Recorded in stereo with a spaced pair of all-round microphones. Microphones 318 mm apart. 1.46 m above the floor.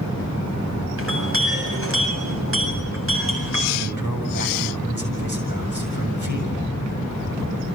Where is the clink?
45° right (ahead or behind), 7.5 m.